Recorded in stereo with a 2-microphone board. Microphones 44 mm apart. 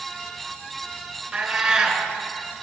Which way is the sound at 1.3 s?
10° right (ahead or behind).